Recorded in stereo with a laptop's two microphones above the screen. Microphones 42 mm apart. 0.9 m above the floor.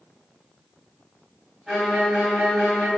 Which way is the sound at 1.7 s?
5° right (ahead or behind).